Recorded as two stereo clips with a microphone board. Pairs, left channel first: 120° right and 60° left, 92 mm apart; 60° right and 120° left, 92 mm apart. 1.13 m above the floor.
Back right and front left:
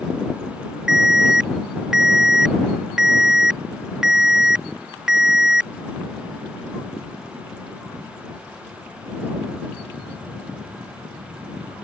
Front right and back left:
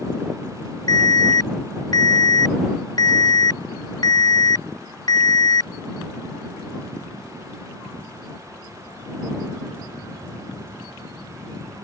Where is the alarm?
25° right.